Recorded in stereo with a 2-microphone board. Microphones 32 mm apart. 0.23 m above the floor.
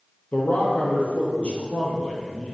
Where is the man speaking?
55° left (ahead or behind), 5.5 m; by 2.5 s 25° left (ahead or behind), 6 m.